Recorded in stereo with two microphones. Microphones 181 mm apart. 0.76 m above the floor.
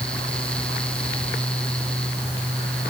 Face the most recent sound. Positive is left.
No sound to turn to.